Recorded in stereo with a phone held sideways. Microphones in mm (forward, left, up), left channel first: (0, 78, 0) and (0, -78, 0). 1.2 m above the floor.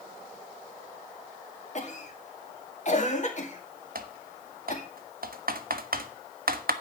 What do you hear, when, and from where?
1.8 s a cough: 55° left (ahead or behind), 1.9 m
4.0 s typing on a keyboard: 75° right (ahead or behind), 0.8 m